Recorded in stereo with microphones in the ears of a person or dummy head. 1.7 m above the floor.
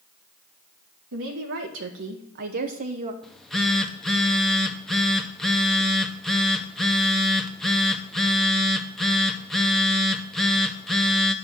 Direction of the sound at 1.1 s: 70° right (ahead or behind).